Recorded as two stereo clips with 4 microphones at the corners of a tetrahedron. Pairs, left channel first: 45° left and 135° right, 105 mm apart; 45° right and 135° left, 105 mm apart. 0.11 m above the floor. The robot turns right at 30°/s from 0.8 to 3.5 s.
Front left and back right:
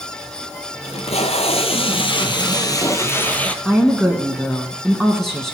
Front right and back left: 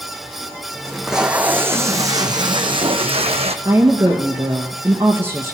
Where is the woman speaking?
130° left, 1.2 m.